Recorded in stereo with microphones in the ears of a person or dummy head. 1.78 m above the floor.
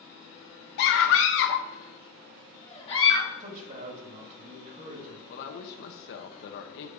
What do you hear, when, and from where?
0.8 s a scream: 60° left (ahead or behind), 0.8 m; by 3.3 s 20° left (ahead or behind), 1.1 m
3.4 s a man speaking: 40° right (ahead or behind), 1.6 m
5.3 s a woman speaking: 60° left (ahead or behind), 0.9 m